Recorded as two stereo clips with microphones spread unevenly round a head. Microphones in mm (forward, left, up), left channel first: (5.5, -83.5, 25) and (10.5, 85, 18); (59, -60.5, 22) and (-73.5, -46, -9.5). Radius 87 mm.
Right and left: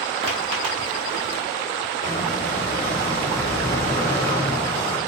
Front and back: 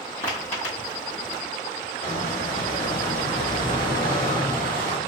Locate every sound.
0.2 s footsteps: 40° left, 1.3 m; by 1.4 s 70° left, 1.5 m
2.0 s a squeak: 20° right, 1.1 m